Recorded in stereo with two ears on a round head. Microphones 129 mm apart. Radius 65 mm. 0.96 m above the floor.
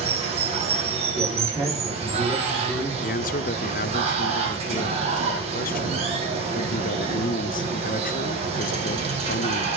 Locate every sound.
0.0 s running water: 40° right (ahead or behind), 3 m
1.1 s a man speaking: 25° right (ahead or behind), 7.5 m
3.0 s a man speaking: 55° left (ahead or behind), 0.6 m